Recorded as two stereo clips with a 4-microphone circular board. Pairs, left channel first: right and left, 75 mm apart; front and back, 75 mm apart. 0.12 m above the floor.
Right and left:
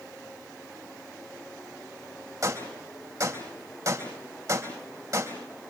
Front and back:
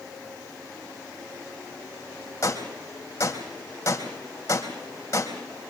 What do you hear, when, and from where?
2.4 s a gunshot: 50° left, 4 m